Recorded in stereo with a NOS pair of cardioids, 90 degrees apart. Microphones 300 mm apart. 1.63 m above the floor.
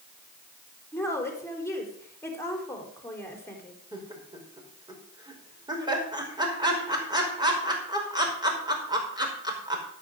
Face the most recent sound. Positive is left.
turn(degrees=-15)